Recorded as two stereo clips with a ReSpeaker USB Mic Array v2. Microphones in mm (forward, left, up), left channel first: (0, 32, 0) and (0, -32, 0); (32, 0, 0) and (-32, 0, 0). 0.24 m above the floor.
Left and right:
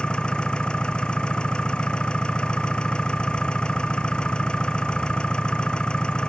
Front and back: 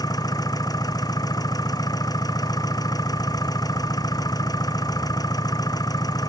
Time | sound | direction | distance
0.0 | an engine running | 10° left | ?